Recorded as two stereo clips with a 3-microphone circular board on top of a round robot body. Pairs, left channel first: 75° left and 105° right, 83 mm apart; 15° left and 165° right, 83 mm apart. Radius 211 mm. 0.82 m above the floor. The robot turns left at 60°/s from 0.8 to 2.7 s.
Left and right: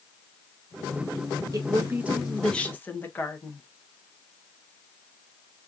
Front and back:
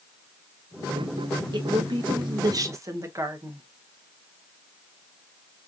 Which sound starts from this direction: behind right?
A woman speaking, at 1.5 s.